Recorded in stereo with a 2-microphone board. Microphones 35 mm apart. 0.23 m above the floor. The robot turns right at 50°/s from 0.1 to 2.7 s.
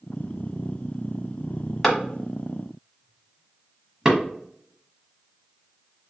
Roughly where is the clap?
Centre.